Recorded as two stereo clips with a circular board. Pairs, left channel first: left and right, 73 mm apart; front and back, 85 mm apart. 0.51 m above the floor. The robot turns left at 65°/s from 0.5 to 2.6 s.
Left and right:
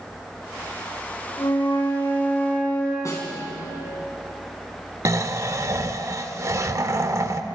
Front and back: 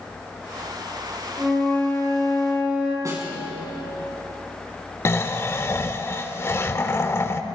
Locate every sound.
1.4 s a flute: 100° left, 6.5 m; by 3.0 s 20° left, 6.5 m
3.0 s a snare drum: 130° left, 5 m
5.0 s snoring: 55° right, 1.0 m